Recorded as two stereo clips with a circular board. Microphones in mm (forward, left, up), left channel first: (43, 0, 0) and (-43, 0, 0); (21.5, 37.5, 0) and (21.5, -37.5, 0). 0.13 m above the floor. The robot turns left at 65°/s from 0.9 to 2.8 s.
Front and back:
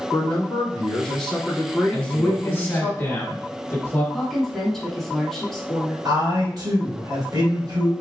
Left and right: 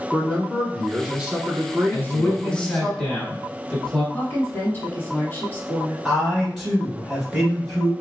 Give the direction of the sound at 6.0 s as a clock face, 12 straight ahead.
6 o'clock.